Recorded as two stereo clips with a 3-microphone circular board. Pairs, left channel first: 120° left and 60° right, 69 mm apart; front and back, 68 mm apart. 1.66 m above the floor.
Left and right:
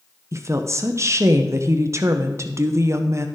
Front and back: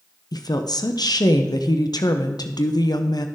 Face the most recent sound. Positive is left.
turn(degrees=-15)